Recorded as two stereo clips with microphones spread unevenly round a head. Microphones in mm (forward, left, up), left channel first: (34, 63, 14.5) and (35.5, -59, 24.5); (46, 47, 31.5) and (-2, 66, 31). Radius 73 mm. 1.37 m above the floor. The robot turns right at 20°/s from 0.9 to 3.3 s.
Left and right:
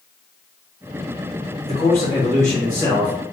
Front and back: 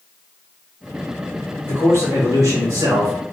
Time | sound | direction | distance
1.6 | a man speaking | 145° left | 1.2 m